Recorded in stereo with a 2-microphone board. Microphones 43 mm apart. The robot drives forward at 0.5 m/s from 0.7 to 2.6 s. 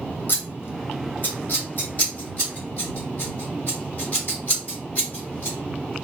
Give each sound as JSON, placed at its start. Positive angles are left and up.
{"t": 0.3, "sound": "scissors", "side_deg": 55, "distance_m": 1.0}